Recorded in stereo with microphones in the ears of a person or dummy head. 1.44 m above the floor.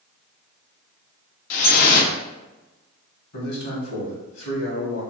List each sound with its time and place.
1.5 s dripping: 50° left (ahead or behind), 0.6 m
3.3 s a man speaking: 60° left (ahead or behind), 1.5 m